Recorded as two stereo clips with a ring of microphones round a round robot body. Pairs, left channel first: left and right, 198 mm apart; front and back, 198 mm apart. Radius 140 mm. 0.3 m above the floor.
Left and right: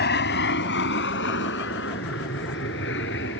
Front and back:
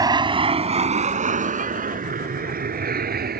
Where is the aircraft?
115° left; by 3.4 s 140° left.